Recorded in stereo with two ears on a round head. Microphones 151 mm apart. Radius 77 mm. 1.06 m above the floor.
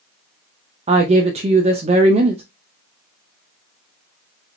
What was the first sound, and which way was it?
A woman speaking, 35° right (ahead or behind).